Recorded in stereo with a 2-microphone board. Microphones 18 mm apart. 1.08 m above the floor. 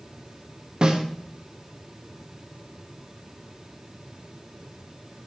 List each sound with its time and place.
0.8 s a snare drum: 50° right (ahead or behind), 1.2 m